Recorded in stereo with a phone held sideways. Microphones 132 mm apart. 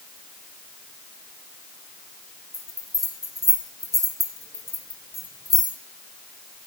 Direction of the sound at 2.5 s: 30° right (ahead or behind).